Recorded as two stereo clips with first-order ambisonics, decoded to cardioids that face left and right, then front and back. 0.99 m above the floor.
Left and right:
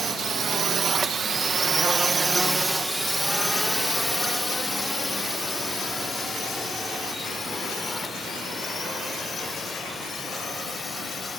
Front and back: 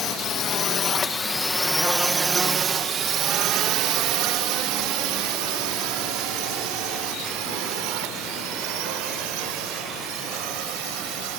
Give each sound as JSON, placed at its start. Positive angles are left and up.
{"t": 0.0, "sound": "a drone", "azimuth_deg": -30}